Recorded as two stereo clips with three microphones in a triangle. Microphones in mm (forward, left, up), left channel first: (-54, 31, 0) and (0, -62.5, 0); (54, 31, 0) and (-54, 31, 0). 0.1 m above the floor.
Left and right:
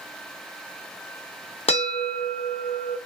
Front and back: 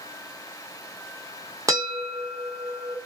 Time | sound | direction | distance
1.7 | a bell | 125° left | 0.9 m